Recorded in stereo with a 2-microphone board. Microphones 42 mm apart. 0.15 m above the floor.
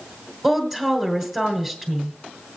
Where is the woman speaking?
5° right (ahead or behind), 1.9 m.